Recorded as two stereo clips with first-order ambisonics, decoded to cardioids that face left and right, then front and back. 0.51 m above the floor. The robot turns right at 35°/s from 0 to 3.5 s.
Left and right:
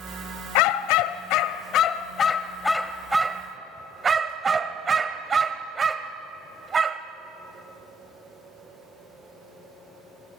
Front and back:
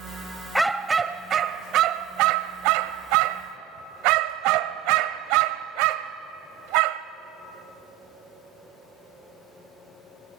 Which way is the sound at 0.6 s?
95° left.